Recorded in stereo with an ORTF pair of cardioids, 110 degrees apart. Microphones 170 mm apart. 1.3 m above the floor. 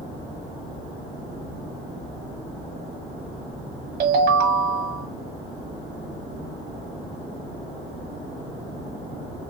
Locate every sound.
4.0 s a ringtone: 65° right, 1.3 m